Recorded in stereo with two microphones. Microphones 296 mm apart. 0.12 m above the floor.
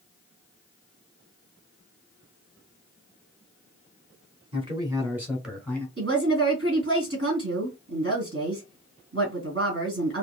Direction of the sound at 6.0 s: 40° right (ahead or behind).